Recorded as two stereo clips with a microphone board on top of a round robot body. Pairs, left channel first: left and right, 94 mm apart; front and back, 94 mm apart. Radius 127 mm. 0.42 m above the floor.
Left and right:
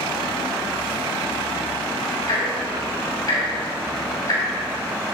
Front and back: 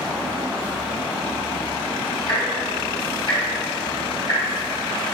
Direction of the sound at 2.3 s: 35° left.